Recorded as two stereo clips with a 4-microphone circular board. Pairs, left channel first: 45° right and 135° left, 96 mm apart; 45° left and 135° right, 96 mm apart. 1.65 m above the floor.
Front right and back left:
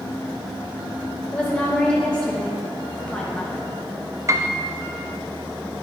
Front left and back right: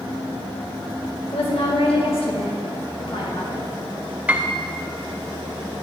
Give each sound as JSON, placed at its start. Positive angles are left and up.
{"t": 1.3, "sound": "a woman speaking", "azimuth_deg": 35, "distance_m": 1.8}
{"t": 4.3, "sound": "a piano", "azimuth_deg": 160, "distance_m": 0.6}